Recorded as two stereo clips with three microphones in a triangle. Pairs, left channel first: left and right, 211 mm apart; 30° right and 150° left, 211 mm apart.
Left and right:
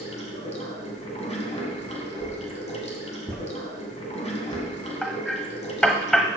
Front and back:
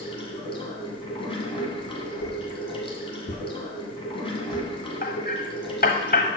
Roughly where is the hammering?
Ahead.